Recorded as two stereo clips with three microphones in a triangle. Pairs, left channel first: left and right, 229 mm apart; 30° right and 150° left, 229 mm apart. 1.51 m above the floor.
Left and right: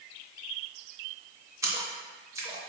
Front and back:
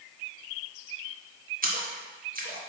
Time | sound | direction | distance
1.6 | a splash | 165° right | 0.6 m